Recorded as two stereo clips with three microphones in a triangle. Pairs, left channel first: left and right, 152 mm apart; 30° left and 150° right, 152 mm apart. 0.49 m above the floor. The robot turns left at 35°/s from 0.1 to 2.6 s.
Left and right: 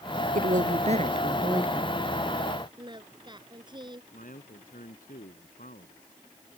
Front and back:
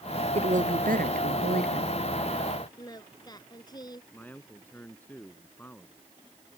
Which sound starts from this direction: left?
A man speaking, at 4.1 s.